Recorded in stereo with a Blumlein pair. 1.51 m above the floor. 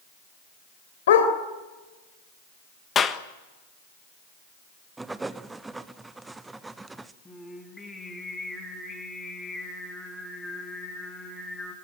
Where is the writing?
10° right, 0.9 m.